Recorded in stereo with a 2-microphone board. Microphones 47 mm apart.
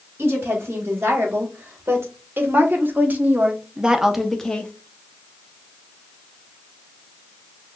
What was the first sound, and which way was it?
A woman speaking, 60° right (ahead or behind).